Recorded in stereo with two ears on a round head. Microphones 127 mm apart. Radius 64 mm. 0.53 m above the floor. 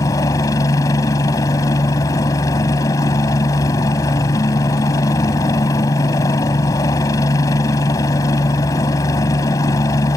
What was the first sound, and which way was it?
A helicopter, 25° left (ahead or behind).